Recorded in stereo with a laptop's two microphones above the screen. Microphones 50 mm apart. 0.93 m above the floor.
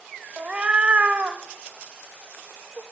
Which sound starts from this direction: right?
A cat meowing, at 0.4 s.